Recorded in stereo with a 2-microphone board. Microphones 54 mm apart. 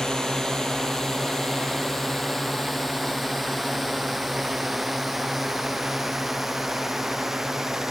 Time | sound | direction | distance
0.0 | a drone | 10° left (ahead or behind) | ?